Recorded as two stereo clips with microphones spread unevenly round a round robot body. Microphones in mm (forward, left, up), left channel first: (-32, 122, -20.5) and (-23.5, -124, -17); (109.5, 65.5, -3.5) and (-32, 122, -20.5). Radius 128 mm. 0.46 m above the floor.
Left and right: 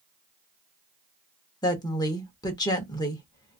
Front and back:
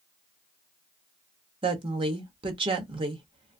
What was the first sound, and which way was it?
A woman speaking, 155° left.